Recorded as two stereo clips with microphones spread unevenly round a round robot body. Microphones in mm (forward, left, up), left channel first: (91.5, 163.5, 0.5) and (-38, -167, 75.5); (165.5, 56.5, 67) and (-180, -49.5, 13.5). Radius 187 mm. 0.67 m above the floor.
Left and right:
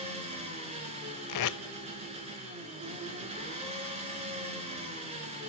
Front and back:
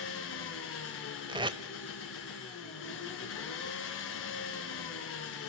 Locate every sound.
0.0 s an engine running: 40° right, 3.5 m
1.3 s tape being pulled: 115° left, 0.7 m